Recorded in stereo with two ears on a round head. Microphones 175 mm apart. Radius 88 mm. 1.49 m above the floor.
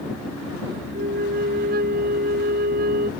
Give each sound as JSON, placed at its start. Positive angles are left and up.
{"t": 0.9, "sound": "a flute", "side_deg": -50}